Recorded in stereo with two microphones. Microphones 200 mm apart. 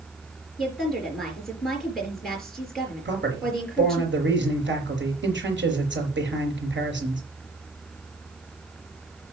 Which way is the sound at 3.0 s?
65° right (ahead or behind).